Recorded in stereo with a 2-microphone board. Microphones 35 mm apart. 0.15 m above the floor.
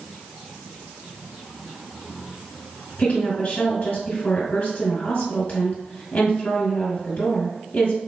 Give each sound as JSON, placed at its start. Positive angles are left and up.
{"t": 3.0, "sound": "a woman speaking", "side_deg": 45, "distance_m": 2.5}